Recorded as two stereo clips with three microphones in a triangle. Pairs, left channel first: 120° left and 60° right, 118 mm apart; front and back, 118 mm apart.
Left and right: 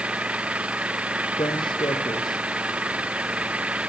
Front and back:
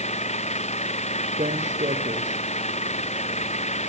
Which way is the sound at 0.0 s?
20° left.